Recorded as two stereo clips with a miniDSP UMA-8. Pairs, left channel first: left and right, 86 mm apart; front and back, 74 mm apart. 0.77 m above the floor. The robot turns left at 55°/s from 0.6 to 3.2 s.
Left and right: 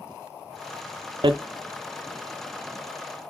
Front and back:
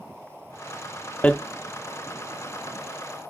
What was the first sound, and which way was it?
Hammering, 70° right.